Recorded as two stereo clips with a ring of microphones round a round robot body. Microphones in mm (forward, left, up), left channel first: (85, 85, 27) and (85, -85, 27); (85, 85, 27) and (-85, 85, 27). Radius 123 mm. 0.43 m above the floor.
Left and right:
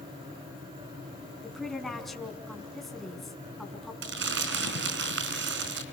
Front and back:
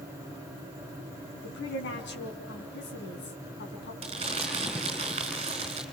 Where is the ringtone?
No ringtone in this recording.